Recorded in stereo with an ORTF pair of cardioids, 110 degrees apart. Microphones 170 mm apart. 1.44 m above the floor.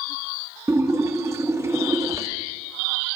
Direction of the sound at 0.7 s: 15° right.